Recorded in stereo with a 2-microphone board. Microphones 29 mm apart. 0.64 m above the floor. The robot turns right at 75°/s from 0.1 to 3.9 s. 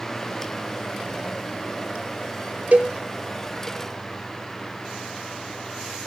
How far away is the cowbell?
About 1.0 m.